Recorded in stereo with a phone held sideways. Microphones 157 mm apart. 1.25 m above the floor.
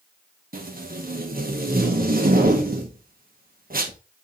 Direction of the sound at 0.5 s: 70° right (ahead or behind).